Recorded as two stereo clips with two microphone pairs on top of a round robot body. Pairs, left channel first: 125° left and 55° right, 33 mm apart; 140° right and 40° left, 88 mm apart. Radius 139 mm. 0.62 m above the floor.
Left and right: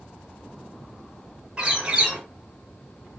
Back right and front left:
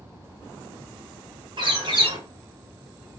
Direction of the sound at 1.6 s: 5° left.